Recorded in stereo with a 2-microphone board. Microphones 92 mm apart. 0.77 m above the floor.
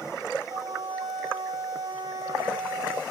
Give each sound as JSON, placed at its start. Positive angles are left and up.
{"t": 0.5, "sound": "a flute", "side_deg": -70, "distance_m": 1.3}